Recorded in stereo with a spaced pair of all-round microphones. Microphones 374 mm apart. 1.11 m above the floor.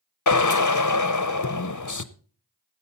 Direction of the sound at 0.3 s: 55° left (ahead or behind).